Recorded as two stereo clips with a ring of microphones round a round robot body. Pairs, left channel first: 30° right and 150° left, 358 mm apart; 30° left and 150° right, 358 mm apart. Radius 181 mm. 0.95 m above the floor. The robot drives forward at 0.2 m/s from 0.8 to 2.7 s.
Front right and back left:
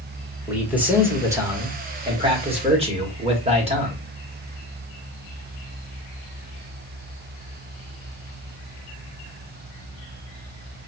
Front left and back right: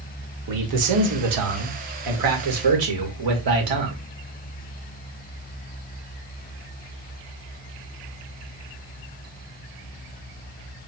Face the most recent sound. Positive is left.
turn(degrees=-140)